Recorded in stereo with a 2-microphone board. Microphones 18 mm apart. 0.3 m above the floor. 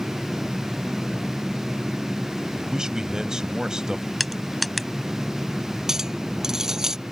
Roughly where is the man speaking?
Right.